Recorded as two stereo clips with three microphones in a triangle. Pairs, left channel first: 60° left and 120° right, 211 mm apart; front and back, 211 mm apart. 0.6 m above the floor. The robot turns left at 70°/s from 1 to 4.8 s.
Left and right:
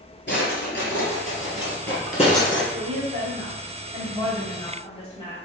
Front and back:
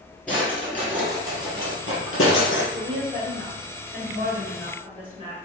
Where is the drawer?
85° left, 2 m; by 2.6 s 30° right, 2 m.